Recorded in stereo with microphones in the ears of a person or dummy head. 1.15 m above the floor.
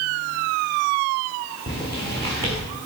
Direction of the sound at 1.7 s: 15° left (ahead or behind).